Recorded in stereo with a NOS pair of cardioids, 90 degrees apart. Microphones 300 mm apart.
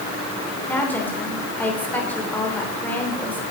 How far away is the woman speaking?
About 3 m.